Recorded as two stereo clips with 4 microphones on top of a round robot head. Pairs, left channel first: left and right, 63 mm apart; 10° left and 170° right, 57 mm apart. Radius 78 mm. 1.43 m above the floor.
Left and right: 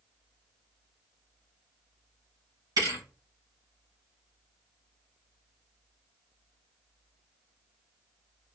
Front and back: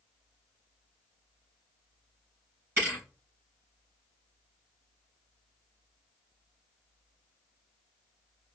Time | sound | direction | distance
2.8 | a thud | 110° right | 3.5 m